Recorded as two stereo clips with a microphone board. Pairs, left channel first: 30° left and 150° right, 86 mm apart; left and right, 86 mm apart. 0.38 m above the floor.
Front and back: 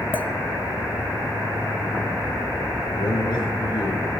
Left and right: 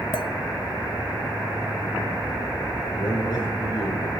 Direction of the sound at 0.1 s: 95° left.